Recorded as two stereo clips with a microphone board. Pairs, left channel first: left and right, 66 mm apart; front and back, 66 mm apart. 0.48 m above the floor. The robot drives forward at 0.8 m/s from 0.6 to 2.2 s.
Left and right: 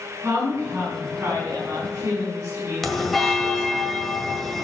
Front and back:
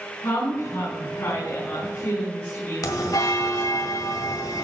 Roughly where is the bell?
Ahead.